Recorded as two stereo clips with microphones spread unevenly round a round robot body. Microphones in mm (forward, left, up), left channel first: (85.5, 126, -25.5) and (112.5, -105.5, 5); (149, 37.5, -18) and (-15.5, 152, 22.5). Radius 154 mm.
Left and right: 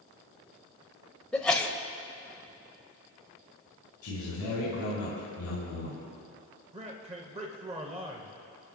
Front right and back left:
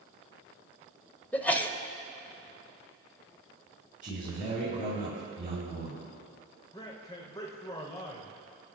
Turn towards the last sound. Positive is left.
turn(degrees=-35)